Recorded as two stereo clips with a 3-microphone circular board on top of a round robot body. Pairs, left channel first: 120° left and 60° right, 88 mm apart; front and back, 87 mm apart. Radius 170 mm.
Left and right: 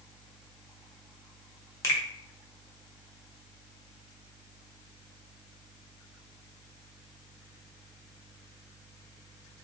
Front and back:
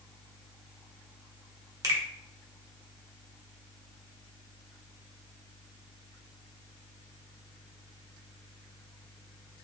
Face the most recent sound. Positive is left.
turn(degrees=165)